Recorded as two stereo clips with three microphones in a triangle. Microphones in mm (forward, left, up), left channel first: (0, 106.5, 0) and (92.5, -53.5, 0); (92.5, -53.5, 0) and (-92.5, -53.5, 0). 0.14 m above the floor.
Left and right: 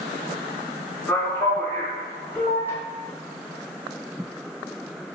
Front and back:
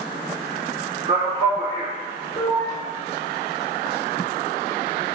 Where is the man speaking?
170° right, 1.3 m.